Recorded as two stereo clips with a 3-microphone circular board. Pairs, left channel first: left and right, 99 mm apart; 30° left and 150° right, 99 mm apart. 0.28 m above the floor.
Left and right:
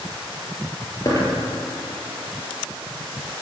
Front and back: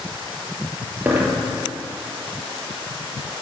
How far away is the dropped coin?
About 3 m.